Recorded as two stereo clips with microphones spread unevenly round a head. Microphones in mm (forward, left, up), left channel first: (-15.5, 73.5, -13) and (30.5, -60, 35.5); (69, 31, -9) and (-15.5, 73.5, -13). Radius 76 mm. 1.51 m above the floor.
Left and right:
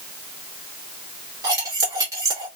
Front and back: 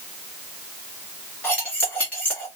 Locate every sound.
1.4 s cutlery clinking: 95° right, 1.1 m